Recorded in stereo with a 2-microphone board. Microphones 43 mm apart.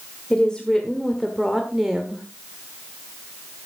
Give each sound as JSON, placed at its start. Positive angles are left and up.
{"t": 0.3, "sound": "a woman speaking", "side_deg": 20, "distance_m": 1.7}